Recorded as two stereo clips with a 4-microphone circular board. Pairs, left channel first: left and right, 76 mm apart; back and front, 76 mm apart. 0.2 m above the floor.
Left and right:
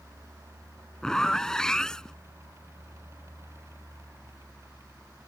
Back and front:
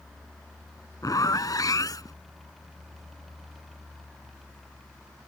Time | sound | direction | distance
1.0 | a zipper | 170° left | ?